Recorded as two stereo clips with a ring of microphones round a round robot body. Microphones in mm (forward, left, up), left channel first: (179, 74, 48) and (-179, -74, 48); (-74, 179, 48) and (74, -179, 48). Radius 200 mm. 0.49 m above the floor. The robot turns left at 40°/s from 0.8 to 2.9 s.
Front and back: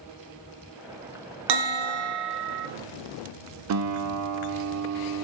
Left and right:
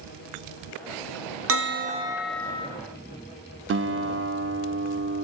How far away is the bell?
About 0.5 m.